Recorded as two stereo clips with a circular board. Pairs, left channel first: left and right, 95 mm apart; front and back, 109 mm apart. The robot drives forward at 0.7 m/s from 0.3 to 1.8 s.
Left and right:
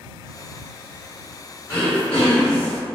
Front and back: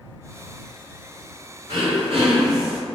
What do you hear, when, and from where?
1.7 s throat clearing: 160° left, 1.7 m